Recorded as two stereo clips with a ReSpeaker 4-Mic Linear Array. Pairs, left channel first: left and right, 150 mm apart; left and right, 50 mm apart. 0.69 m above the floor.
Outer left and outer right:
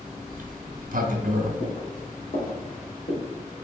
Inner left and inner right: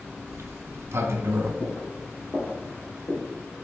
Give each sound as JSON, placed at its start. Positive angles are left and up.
{"t": 0.3, "sound": "a sliding door", "side_deg": -65, "distance_m": 0.6}
{"t": 1.6, "sound": "footsteps", "side_deg": 45, "distance_m": 1.9}